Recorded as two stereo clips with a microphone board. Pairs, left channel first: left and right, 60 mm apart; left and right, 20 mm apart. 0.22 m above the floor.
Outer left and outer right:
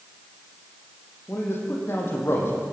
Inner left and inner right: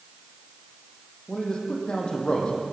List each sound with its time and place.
1.3 s a man speaking: 40° left (ahead or behind), 7.5 m